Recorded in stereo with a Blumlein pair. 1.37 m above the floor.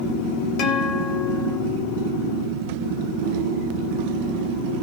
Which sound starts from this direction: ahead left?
A guitar, at 0.6 s.